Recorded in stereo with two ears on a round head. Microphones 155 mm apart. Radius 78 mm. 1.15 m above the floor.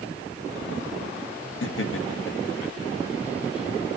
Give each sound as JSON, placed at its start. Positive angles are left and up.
{"t": 1.6, "sound": "laughter", "side_deg": 75, "distance_m": 1.9}